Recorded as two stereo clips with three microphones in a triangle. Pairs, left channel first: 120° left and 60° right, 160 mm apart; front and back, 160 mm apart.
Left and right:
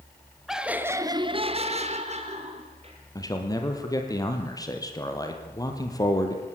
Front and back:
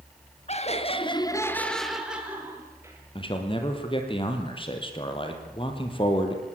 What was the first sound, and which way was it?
Laughter, 30° left.